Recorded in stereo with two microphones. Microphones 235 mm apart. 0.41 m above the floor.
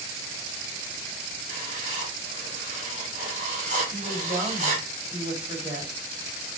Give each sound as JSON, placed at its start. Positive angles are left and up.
{"t": 1.5, "sound": "writing", "side_deg": -30, "distance_m": 1.3}
{"t": 3.9, "sound": "a woman speaking", "side_deg": -20, "distance_m": 1.9}